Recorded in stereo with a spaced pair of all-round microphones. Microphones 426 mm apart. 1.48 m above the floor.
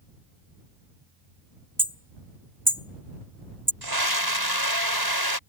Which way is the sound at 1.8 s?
5° right (ahead or behind).